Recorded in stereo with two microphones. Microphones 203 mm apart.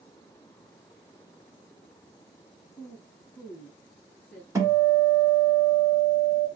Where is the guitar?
15° right (ahead or behind), 1.5 m.